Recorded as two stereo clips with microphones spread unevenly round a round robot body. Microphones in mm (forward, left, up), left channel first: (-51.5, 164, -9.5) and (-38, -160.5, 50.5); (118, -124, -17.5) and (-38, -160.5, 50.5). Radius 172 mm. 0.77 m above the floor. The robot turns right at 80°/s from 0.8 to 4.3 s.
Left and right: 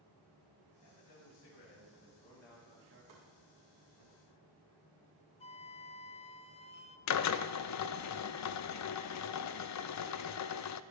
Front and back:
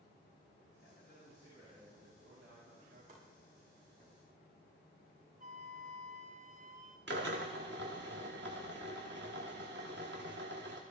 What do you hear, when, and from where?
0.8 s a man speaking: 50° left, 5 m; by 4.1 s 50° right, 5 m
3.1 s chopping: 125° right, 7.5 m; by 3.2 s 115° right, 7.5 m
5.4 s a flute: 170° left, 0.6 m
7.1 s a drill: 130° left, 0.7 m